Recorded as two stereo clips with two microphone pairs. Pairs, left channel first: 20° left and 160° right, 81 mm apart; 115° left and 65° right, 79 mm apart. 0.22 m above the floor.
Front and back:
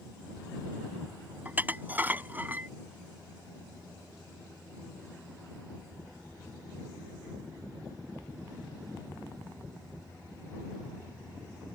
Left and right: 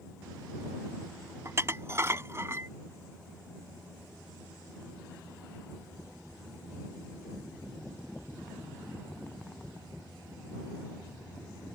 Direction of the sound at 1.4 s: 100° right.